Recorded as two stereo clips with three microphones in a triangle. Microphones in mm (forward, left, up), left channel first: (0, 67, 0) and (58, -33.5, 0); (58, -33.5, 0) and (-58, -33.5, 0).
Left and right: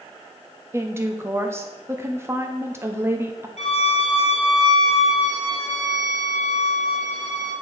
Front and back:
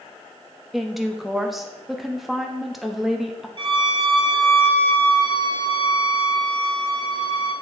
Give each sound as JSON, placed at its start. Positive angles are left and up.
{"t": 0.7, "sound": "a woman speaking", "azimuth_deg": -90, "distance_m": 0.8}
{"t": 3.6, "sound": "a violin", "azimuth_deg": 135, "distance_m": 1.4}